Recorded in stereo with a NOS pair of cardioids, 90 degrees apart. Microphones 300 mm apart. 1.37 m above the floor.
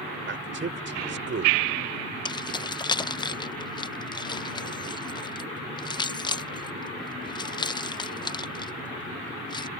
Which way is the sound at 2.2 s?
15° left.